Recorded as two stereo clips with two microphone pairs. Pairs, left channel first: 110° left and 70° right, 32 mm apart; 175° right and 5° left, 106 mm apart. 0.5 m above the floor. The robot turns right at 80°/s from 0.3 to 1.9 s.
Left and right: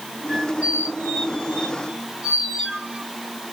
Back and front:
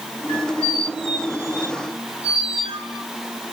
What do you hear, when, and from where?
0.3 s a squeak: 145° right, 1.5 m; by 3.0 s 15° right, 1.5 m